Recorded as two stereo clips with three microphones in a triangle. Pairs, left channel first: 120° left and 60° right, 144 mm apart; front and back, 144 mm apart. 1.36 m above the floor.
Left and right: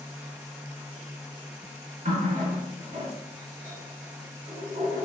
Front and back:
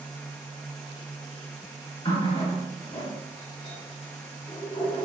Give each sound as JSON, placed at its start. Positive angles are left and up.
{"t": 2.0, "sound": "a running tap", "azimuth_deg": -45, "distance_m": 1.4}